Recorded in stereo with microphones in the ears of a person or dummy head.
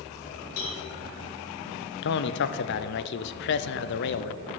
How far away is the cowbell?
About 2.5 m.